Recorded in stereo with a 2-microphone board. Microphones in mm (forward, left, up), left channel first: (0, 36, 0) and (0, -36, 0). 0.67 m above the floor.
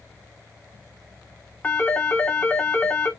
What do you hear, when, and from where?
1.6 s a phone ringing: 25° left (ahead or behind), 1.3 m